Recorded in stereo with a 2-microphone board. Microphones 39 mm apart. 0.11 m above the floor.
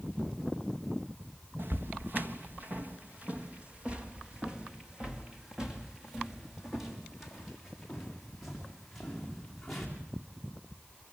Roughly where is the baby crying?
I don't hear a baby crying.